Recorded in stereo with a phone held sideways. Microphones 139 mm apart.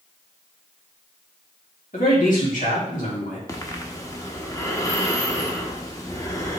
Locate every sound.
1.9 s a man speaking: 75° left (ahead or behind), 2.5 m
3.5 s breathing: 25° left (ahead or behind), 0.9 m